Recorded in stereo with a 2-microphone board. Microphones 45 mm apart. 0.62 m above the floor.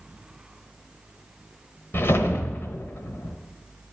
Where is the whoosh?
55° left (ahead or behind), 1.1 m.